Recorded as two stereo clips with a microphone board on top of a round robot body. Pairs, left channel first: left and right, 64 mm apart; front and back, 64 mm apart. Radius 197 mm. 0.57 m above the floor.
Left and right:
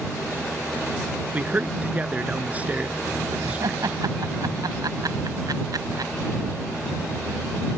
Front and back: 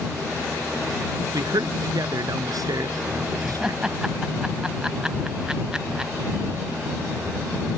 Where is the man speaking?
160° right.